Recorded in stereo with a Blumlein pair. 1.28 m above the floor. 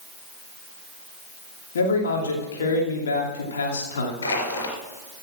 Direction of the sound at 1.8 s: 65° left.